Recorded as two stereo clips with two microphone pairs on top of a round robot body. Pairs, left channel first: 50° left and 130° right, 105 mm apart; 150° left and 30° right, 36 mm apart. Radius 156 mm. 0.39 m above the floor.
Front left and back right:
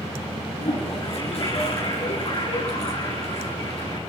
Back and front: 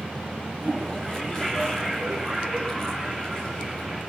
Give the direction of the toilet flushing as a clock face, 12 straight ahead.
9 o'clock.